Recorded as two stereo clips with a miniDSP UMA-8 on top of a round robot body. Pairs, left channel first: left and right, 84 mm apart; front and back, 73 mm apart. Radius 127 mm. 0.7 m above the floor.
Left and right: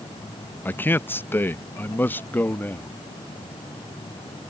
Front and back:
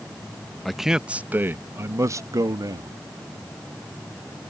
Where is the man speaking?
85° left; by 2.9 s 155° left.